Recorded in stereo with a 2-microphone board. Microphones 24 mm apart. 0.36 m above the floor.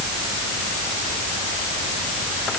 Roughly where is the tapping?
I don't hear tapping.